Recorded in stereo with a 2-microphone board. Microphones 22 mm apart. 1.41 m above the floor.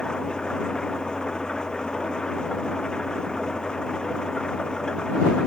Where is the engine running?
45° left (ahead or behind).